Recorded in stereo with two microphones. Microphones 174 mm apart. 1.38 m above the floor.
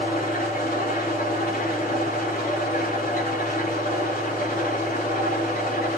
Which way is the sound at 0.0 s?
60° left (ahead or behind).